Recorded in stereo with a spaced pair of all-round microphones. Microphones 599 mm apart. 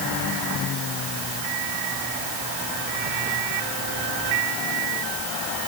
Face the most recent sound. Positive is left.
No sound to turn to.